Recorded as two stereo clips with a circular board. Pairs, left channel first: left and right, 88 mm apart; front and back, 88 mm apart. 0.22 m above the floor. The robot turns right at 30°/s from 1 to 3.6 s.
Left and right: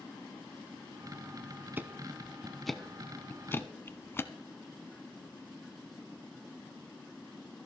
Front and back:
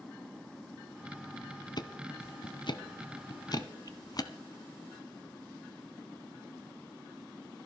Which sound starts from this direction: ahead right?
Ticking, at 1.8 s.